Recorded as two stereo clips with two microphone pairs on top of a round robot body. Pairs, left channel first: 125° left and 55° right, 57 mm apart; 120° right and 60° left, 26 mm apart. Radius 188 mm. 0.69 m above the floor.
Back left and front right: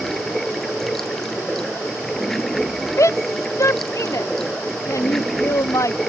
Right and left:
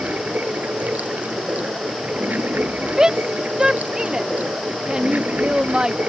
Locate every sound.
0.0 s running water: 40° left
3.0 s a shout: 120° left